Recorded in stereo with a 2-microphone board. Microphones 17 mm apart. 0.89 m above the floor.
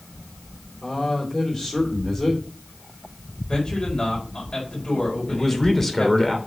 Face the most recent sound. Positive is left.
turn(degrees=20)  # may be behind; listen again after turning